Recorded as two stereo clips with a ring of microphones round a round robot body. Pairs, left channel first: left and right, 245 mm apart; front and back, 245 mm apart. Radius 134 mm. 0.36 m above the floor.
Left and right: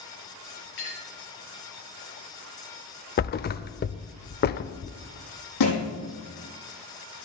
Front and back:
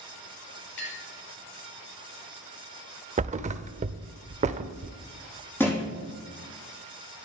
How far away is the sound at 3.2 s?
About 0.5 m.